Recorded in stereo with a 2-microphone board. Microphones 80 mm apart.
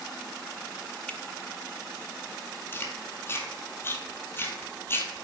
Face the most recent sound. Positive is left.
turn(degrees=30)  # may be behind; listen again after turning